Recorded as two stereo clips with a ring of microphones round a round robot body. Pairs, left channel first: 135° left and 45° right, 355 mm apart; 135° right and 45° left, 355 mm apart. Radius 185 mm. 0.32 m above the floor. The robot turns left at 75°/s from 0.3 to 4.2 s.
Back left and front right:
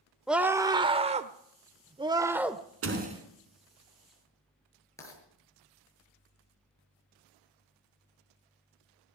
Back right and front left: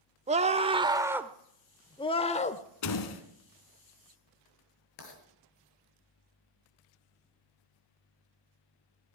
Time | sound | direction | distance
0.3 | a scream | 40° left | 0.9 m
2.8 | a door slam | 95° right | 2.5 m
5.0 | writing | 145° right | 7.5 m